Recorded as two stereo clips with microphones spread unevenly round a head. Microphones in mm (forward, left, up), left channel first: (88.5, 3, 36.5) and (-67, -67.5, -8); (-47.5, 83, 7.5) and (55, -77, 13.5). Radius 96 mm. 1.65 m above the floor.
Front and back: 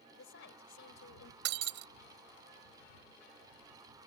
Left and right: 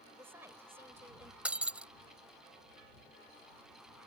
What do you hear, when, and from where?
0.1 s a woman speaking: 20° left
1.4 s breaking glass: 140° right